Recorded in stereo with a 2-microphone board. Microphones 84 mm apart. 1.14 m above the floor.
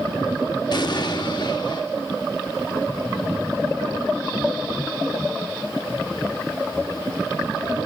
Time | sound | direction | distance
0.7 | an explosion | 55° left (ahead or behind) | 1.2 m